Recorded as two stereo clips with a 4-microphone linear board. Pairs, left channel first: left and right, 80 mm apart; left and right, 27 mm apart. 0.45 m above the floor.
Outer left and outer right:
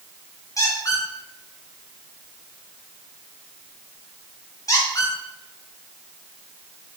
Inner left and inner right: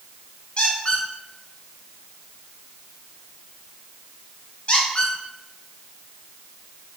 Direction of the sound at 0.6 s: 45° left (ahead or behind).